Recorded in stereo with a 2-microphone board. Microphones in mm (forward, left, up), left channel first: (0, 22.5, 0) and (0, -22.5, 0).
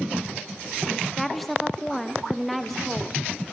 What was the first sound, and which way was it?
A woman speaking, centre (ahead or behind).